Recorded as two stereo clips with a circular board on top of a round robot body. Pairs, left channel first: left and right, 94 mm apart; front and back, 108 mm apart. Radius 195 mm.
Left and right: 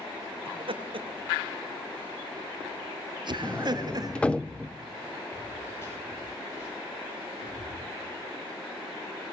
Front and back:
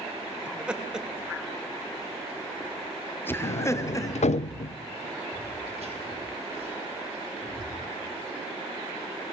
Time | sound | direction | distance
0.5 | laughter | 100° right | 3 m
3.4 | a sliding door | 10° left | 0.6 m
5.3 | footsteps | 155° left | 6 m